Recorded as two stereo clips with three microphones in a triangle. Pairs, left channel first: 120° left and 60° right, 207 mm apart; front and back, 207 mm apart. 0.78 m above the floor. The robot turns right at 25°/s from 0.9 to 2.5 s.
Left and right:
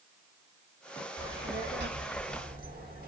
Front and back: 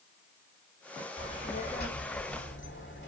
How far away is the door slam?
I don't hear a door slam.